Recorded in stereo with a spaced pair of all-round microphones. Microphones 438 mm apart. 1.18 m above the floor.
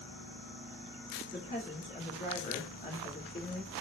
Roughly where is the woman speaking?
Left.